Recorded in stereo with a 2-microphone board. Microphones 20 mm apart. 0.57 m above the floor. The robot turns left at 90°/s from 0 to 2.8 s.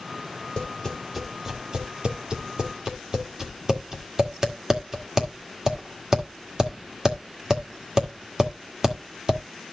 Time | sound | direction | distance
0.6 | tapping | 45° left (ahead or behind) | 1.8 m